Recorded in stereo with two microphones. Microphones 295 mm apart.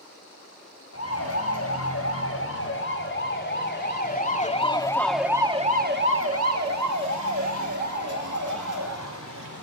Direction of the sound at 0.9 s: 55° left (ahead or behind).